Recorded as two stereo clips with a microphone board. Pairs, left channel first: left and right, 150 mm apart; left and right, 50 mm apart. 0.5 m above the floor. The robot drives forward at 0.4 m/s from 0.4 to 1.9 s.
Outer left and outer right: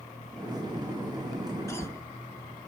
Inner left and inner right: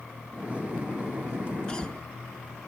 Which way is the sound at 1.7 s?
20° left (ahead or behind).